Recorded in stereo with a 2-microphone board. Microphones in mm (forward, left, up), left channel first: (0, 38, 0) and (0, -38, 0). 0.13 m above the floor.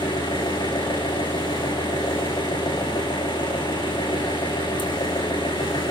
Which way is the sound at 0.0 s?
70° left (ahead or behind).